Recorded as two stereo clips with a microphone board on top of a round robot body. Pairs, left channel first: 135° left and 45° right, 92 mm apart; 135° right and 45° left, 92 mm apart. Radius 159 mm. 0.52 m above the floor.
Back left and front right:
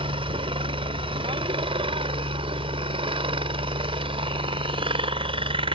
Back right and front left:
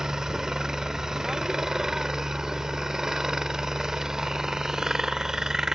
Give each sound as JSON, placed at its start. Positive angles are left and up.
{"t": 0.0, "sound": "a helicopter", "azimuth_deg": -40}